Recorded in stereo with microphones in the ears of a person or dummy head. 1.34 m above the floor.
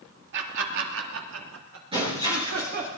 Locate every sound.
0.3 s laughter: 60° right (ahead or behind), 2.5 m; by 2.9 s 55° right (ahead or behind), 4 m
1.9 s breaking glass: 35° right (ahead or behind), 9.5 m